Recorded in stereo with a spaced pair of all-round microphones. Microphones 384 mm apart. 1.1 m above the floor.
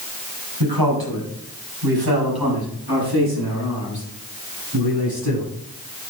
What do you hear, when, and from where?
0.6 s a man speaking: 70° right (ahead or behind), 6.5 m; by 5.5 s 75° right (ahead or behind), 11 m